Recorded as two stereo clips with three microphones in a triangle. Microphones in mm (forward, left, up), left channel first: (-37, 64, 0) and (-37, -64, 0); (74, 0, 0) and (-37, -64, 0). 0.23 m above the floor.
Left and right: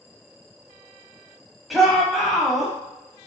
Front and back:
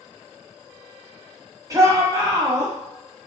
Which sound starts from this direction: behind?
A shout, at 1.7 s.